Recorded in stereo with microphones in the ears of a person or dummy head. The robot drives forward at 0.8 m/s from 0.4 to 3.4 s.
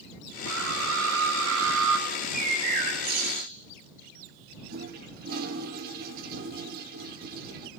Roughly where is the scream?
Right.